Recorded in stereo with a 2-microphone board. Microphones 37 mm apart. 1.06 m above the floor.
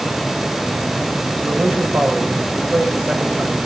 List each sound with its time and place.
1.4 s a man speaking: 75° right (ahead or behind), 5.5 m